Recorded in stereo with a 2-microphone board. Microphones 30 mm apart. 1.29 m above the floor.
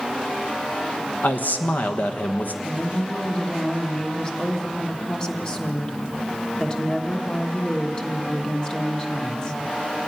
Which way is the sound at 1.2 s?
75° left (ahead or behind).